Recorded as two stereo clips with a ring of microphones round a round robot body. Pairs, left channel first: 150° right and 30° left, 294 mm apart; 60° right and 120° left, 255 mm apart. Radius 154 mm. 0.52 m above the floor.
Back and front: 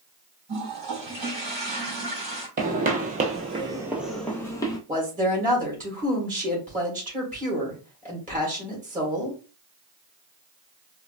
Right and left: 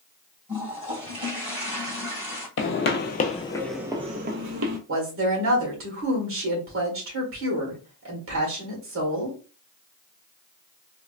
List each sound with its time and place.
0.5 s a toilet flushing: 50° left, 2.5 m
2.6 s footsteps: 30° right, 0.9 m; by 4.8 s 135° left, 0.8 m
4.9 s a woman speaking: 90° left, 1.9 m